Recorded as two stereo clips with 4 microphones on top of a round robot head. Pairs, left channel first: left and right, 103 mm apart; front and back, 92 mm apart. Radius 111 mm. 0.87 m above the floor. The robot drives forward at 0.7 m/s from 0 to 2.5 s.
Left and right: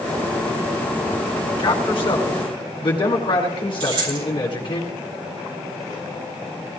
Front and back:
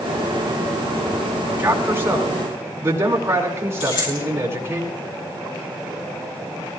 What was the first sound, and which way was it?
A man speaking, 115° left.